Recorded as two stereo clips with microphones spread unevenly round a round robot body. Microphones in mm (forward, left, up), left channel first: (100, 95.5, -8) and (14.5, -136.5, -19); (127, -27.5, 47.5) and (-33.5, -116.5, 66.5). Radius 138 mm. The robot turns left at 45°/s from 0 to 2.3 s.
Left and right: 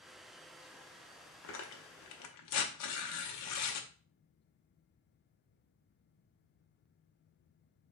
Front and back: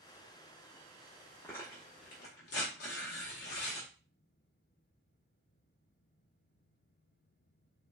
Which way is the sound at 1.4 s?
115° left.